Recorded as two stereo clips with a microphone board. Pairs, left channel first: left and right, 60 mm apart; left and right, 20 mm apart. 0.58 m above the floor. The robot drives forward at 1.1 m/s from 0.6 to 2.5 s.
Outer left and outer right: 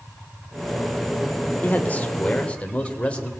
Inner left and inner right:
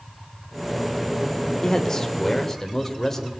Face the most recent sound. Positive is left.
turn(degrees=20)  # may be behind; listen again after turning